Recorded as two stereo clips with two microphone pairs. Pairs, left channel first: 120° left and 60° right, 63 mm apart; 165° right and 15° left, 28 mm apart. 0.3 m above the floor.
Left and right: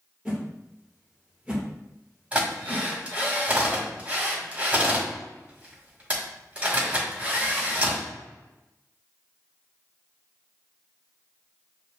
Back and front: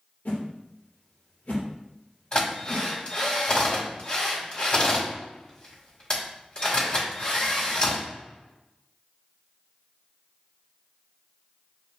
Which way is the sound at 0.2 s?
140° right.